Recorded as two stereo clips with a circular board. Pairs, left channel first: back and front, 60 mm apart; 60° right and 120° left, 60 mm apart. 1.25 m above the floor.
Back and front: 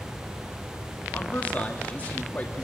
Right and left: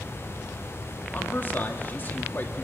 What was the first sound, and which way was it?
A man speaking, 115° right.